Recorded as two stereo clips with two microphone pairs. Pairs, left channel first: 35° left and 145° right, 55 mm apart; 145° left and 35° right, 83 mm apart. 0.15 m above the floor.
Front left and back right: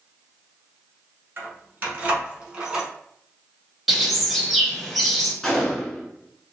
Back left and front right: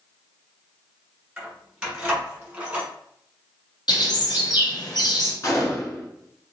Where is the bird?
125° left, 1.0 m.